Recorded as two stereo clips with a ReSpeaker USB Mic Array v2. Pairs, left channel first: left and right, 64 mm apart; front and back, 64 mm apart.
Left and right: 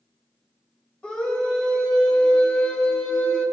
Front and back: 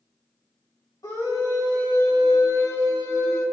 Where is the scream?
15° left, 3.5 m.